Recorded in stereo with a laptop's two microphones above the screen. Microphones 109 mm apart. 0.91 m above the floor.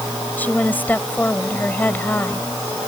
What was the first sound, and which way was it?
A woman speaking, 15° left (ahead or behind).